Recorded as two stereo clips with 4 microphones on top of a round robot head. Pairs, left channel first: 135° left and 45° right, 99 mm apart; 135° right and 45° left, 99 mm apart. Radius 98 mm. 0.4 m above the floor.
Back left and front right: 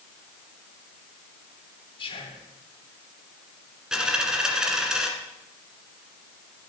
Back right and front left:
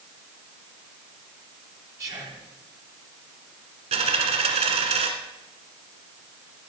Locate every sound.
2.0 s whispering: 105° left, 3 m
3.9 s a dropped coin: 35° left, 1.5 m